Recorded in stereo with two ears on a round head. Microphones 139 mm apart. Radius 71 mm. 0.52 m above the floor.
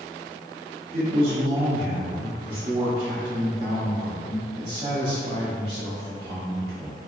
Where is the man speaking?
45° right (ahead or behind), 1.2 m.